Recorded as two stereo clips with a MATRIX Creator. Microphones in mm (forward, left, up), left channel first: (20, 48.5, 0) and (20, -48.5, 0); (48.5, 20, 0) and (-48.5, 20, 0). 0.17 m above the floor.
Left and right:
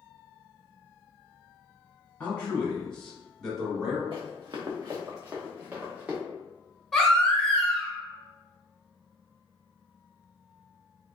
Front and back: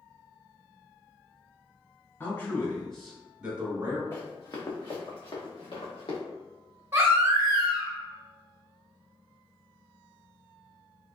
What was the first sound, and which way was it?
A man speaking, 30° left.